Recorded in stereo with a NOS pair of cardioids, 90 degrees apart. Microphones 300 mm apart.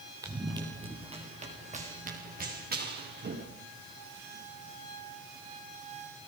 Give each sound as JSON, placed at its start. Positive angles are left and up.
{"t": 0.2, "sound": "running footsteps", "azimuth_deg": -10, "distance_m": 5.0}